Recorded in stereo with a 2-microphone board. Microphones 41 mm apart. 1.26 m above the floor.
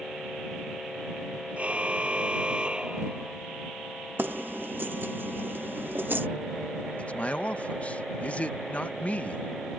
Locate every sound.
1.6 s a car horn: 30° right (ahead or behind); by 3.4 s 20° right (ahead or behind)
4.2 s keys jangling: 55° right (ahead or behind)
7.0 s a man speaking: 35° left (ahead or behind)